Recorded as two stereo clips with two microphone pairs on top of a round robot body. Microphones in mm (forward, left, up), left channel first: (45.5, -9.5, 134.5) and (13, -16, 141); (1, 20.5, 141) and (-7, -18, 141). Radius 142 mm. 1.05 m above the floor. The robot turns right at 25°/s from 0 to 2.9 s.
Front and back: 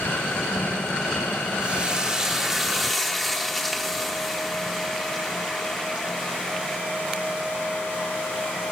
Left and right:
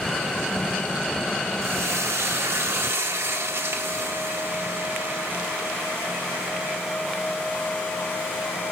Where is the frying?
110° right, 1.8 m; by 6.8 s 80° right, 1.8 m.